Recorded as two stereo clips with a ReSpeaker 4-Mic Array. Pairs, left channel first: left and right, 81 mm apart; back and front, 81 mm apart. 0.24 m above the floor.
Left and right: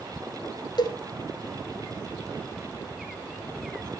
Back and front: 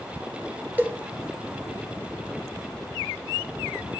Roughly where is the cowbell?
Left.